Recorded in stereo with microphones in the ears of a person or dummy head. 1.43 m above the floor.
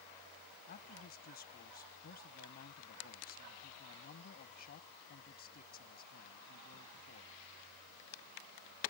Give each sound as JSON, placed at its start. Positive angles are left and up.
{"t": 0.7, "sound": "a man speaking", "side_deg": 50}